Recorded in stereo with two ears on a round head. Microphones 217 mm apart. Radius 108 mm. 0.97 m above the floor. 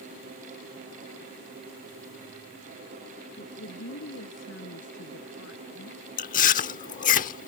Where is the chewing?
35° left (ahead or behind).